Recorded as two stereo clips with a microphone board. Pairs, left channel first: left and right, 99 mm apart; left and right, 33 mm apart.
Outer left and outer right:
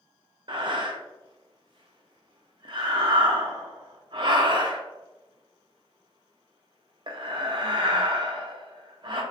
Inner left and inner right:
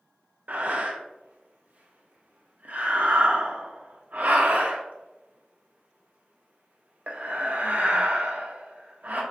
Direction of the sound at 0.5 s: 55° right (ahead or behind).